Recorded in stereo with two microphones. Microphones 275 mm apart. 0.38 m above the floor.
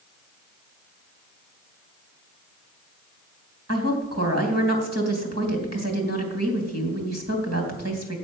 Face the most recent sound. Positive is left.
turn(degrees=-65)  # may be behind; listen again after turning